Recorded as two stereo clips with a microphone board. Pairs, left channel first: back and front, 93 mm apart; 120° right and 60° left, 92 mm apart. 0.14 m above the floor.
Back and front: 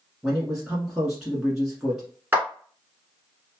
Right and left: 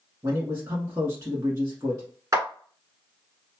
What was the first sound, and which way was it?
A man speaking, 80° left.